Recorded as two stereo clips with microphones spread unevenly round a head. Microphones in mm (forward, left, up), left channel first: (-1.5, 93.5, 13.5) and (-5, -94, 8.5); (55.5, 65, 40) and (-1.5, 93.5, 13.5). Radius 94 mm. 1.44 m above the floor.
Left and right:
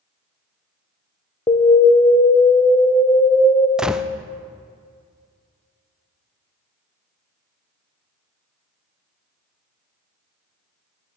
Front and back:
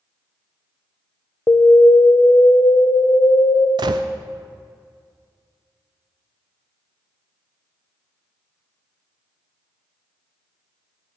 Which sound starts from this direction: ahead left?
An alarm, at 1.5 s.